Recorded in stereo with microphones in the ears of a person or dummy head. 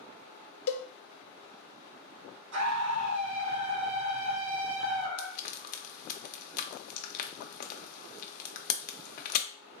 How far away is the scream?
About 1.5 m.